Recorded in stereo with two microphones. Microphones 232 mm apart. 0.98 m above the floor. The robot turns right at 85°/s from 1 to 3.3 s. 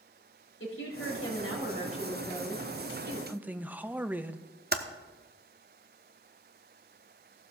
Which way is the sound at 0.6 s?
65° left.